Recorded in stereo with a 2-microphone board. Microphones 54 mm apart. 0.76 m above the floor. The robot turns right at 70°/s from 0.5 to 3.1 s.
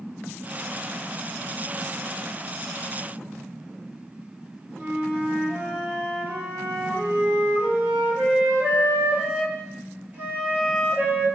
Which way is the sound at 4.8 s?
35° right (ahead or behind).